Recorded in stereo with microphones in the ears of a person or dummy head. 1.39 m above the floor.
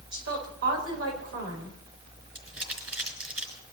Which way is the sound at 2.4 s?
10° right (ahead or behind).